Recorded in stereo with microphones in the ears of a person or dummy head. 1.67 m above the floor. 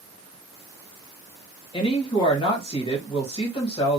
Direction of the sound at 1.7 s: 30° left (ahead or behind).